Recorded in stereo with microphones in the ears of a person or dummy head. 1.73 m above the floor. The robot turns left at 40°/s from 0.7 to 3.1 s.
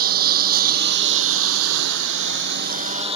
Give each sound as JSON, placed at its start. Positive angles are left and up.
{"t": 0.0, "sound": "a lawn mower", "azimuth_deg": -50}